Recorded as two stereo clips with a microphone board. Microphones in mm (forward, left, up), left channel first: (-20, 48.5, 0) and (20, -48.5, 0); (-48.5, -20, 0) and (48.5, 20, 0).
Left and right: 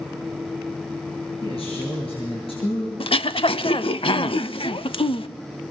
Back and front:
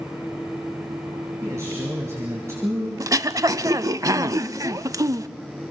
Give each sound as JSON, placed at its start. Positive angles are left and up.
{"t": 1.4, "sound": "a man speaking", "azimuth_deg": 85, "distance_m": 6.5}
{"t": 3.0, "sound": "throat clearing", "azimuth_deg": 80, "distance_m": 0.6}